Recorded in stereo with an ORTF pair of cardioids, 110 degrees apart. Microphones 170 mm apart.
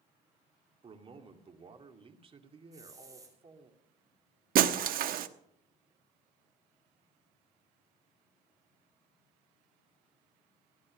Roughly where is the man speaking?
Ahead right.